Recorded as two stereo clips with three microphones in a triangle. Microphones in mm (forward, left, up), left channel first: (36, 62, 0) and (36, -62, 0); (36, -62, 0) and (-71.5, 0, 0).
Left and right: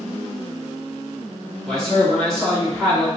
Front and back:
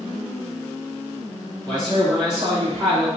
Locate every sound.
1.6 s a man speaking: 170° left, 1.5 m; by 3.1 s 175° left, 2.5 m